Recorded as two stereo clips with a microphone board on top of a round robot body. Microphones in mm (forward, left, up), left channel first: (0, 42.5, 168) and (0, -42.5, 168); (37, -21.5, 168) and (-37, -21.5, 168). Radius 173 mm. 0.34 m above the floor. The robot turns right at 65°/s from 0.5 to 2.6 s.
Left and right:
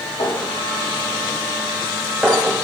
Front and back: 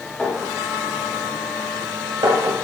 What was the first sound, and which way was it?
A clink, 70° left.